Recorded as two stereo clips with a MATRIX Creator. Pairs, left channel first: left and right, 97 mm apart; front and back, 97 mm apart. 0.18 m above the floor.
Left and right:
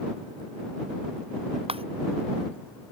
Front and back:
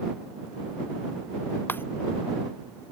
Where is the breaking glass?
70° right.